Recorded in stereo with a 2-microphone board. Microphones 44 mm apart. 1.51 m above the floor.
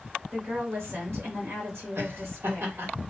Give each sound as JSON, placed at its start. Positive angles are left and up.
{"t": 0.3, "sound": "a woman speaking", "side_deg": -60, "distance_m": 1.5}
{"t": 2.0, "sound": "laughter", "side_deg": -60, "distance_m": 1.3}